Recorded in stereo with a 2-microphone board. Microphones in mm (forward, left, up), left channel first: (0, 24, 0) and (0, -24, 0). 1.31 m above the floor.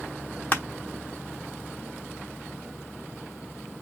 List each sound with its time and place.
0.5 s crushing: 30° left (ahead or behind), 1.1 m